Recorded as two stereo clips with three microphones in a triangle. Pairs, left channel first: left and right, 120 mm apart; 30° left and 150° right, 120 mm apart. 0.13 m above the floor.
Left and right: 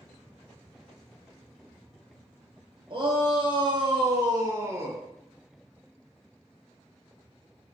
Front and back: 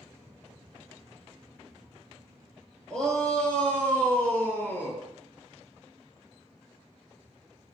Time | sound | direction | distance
2.9 | a shout | 55° right | 3 m